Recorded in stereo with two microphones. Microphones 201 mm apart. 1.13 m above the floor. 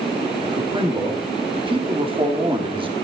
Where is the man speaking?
25° right (ahead or behind), 2.5 m.